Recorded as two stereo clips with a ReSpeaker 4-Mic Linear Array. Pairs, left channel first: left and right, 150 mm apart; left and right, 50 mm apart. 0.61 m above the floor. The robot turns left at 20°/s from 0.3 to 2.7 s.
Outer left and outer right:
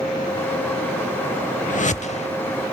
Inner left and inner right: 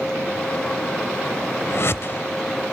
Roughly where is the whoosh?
Left.